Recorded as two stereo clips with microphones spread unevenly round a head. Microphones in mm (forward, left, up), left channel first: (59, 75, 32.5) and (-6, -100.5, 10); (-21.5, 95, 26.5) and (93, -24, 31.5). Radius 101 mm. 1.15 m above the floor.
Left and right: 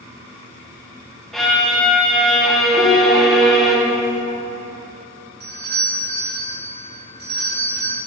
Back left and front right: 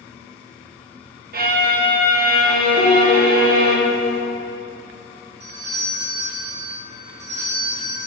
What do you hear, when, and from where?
1.3 s a violin: 15° right, 1.0 m
2.8 s a piano: 170° left, 2 m
5.4 s a doorbell: 80° right, 2.0 m